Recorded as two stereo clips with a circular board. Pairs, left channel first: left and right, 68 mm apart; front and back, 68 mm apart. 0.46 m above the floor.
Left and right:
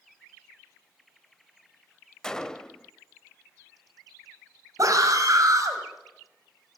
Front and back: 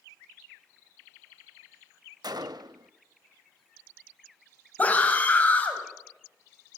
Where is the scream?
65° right, 2.5 m.